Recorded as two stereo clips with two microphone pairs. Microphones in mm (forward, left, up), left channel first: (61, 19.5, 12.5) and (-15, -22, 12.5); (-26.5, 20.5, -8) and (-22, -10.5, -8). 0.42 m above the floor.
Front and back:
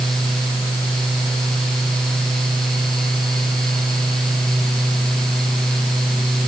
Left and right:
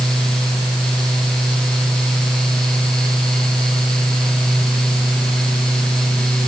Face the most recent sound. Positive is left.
No sound to turn to.